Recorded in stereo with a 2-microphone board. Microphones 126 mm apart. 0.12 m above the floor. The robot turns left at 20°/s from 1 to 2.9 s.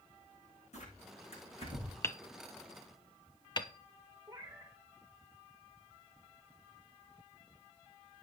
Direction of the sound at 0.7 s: 65° left (ahead or behind).